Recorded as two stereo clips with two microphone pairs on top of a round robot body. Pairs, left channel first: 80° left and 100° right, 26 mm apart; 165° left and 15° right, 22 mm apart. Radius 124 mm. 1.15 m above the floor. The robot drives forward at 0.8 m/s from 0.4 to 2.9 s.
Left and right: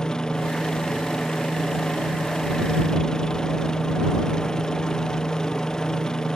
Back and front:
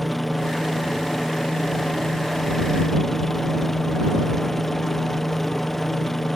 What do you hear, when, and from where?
0.0 s a helicopter: 95° left; by 6.4 s 110° left